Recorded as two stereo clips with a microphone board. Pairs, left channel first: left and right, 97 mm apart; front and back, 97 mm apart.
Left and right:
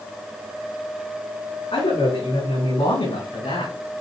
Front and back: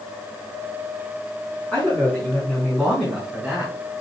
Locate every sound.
1.7 s a man speaking: 80° left, 6 m; by 3.7 s 90° left, 6.5 m